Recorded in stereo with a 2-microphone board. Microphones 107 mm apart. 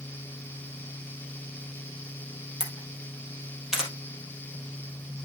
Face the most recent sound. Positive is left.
turn(degrees=-5)  # may be behind; listen again after turning